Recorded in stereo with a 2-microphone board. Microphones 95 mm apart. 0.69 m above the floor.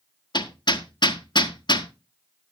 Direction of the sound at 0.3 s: 50° left (ahead or behind).